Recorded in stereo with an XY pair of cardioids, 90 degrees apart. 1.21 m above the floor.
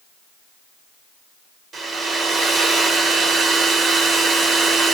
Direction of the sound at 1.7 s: 70° right.